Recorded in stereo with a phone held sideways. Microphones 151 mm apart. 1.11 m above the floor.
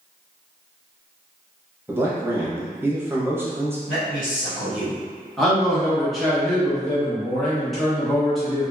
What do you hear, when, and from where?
1.9 s a man speaking: 15° right (ahead or behind), 0.7 m
3.9 s a man speaking: 65° left (ahead or behind), 1.8 m
5.4 s a man speaking: centre (ahead or behind), 1.0 m